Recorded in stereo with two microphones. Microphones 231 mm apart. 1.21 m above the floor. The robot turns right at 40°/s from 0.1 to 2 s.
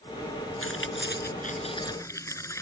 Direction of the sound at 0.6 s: 70° left (ahead or behind).